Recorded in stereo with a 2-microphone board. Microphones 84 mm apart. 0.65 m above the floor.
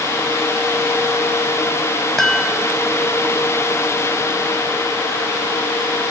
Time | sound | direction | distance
2.2 | a chime | 5° left (ahead or behind) | ?